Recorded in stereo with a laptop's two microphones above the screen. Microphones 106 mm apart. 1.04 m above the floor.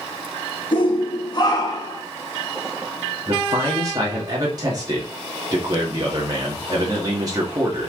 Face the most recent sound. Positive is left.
turn(degrees=-35)  # may be behind; listen again after turning